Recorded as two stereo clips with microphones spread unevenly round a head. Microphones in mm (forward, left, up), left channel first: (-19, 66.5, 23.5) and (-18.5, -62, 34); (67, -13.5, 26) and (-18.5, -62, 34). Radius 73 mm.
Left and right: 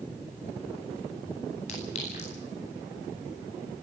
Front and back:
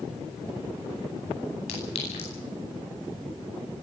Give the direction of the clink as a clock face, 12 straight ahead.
10 o'clock.